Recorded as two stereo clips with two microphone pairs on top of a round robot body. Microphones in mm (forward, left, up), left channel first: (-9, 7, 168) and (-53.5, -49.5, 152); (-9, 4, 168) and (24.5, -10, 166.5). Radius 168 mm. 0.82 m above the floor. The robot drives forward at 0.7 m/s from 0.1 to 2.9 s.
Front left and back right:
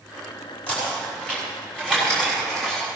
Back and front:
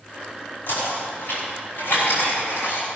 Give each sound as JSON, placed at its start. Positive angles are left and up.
{"t": 0.7, "sound": "knocking", "azimuth_deg": 120, "distance_m": 6.0}